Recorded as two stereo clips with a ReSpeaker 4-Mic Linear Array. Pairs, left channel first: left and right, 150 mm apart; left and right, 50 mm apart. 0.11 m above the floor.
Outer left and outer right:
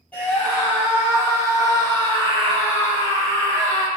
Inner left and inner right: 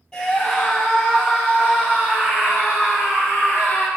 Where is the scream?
10° left (ahead or behind), 2.5 m; by 3.9 s 60° right (ahead or behind), 4 m.